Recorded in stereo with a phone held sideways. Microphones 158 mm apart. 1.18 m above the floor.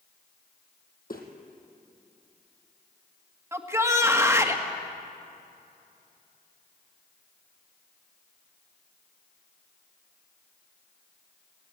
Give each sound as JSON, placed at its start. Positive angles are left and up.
{"t": 1.1, "sound": "footsteps", "side_deg": 65, "distance_m": 2.5}
{"t": 3.5, "sound": "a shout", "side_deg": -15, "distance_m": 1.7}